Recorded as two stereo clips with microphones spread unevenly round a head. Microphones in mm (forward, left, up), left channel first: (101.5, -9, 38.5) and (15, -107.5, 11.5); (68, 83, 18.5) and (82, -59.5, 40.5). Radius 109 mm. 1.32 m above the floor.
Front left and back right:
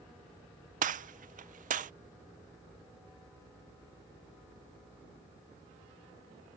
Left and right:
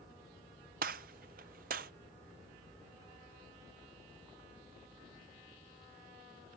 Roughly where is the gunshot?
Behind right.